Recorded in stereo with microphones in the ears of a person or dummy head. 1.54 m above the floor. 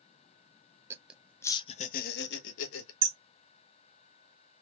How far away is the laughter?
About 0.8 m.